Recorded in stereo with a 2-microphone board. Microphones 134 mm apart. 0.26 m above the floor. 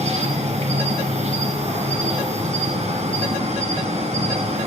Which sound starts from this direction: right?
An insect, at 0.0 s.